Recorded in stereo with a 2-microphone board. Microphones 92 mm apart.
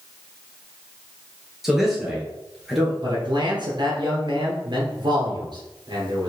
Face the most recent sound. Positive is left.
turn(degrees=-55)  # may be behind; listen again after turning